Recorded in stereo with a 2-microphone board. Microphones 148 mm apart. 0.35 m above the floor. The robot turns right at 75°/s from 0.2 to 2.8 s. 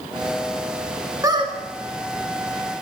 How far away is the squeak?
About 1.6 m.